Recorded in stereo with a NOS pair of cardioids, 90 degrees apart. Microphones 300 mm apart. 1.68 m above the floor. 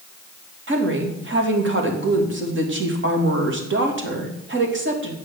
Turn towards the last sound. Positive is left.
turn(degrees=-40)